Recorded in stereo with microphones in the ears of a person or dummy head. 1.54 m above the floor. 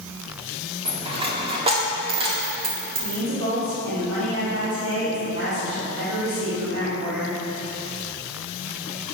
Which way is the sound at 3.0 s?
80° right.